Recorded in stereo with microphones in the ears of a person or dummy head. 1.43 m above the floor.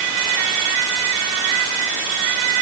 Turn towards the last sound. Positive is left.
No sound to turn to.